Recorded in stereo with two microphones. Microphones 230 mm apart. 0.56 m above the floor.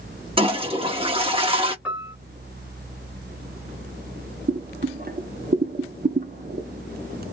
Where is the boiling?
45° right (ahead or behind), 0.7 m.